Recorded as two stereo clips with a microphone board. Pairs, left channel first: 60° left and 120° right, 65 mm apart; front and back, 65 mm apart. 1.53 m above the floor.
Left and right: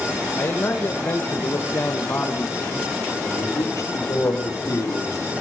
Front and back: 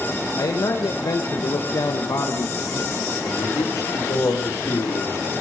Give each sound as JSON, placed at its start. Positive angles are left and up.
{"t": 0.4, "sound": "a man speaking", "azimuth_deg": 10, "distance_m": 1.4}
{"t": 3.2, "sound": "a man speaking", "azimuth_deg": 30, "distance_m": 3.0}